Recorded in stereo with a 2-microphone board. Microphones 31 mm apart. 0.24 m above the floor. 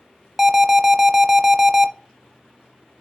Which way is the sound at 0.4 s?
15° right (ahead or behind).